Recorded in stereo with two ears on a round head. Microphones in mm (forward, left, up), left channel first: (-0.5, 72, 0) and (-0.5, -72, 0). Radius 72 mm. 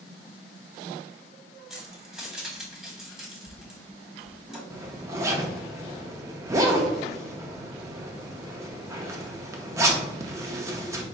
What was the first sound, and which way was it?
Keys jangling, 5° right (ahead or behind).